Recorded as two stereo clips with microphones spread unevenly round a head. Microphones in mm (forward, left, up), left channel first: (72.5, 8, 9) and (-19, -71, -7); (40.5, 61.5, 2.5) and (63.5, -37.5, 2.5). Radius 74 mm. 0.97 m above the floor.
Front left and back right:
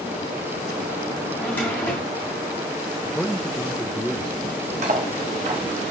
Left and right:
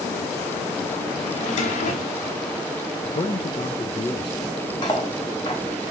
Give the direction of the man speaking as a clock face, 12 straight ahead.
8 o'clock.